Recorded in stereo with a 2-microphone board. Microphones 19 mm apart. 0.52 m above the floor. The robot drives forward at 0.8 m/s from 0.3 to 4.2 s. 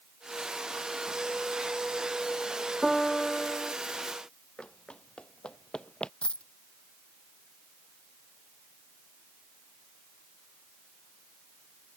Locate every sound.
2.8 s a piano: 5° right (ahead or behind)
4.6 s running footsteps: 70° left (ahead or behind)
6.2 s a dropped coin: 75° left (ahead or behind)